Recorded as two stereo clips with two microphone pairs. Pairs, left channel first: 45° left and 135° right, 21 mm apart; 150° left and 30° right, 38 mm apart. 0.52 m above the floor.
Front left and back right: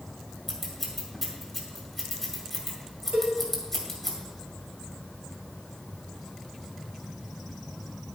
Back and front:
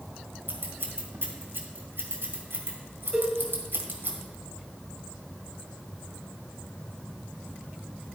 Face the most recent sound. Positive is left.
turn(degrees=-140)